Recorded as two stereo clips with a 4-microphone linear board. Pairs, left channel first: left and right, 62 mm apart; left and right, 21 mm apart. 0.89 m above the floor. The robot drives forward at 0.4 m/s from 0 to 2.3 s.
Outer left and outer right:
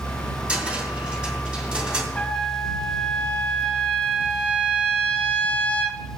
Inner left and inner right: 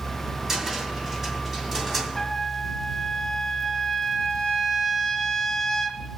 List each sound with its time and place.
0.5 s a cupboard door: 20° right (ahead or behind), 2 m
2.1 s a trumpet: 15° left (ahead or behind), 1.2 m